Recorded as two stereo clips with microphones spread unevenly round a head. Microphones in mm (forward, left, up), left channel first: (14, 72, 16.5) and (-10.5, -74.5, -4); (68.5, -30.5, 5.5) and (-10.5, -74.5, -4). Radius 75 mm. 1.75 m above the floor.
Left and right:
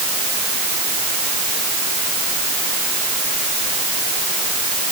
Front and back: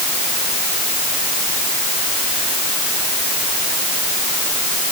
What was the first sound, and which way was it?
Only background noise.